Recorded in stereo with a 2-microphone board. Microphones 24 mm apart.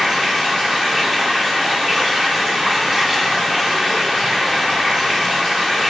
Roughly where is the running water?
Centre.